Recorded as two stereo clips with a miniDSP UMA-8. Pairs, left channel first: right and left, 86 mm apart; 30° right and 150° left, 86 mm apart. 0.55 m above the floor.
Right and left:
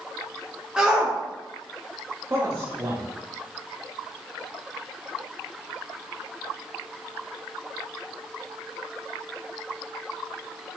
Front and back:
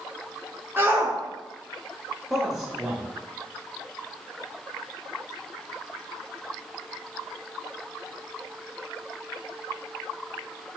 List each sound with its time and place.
0.8 s a shout: 160° left, 0.8 m
2.3 s a man speaking: 70° left, 0.7 m